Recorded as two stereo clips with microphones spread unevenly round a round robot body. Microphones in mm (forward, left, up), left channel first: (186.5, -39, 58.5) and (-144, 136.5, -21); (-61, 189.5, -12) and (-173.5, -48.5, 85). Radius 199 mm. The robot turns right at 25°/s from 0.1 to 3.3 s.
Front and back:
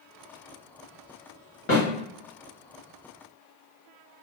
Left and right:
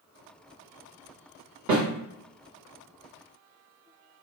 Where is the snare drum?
100° right, 1.7 m; by 1.9 s 95° right, 1.7 m.